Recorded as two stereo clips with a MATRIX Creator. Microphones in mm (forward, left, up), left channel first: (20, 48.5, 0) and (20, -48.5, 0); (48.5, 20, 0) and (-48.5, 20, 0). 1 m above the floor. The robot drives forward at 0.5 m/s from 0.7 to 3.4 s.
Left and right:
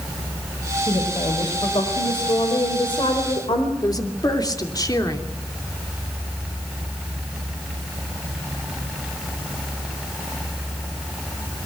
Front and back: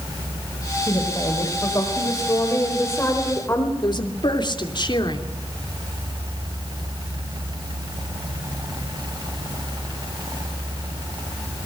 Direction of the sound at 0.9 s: 50° left.